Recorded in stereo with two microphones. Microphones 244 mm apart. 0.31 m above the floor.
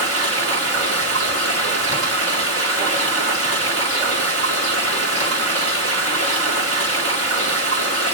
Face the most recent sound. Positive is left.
turn(degrees=-70)  # may be behind; listen again after turning